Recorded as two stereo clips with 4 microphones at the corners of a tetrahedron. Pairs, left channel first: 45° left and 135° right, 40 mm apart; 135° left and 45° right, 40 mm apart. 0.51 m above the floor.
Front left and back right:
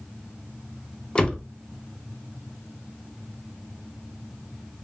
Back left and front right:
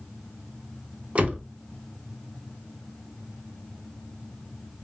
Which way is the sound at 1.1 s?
15° right.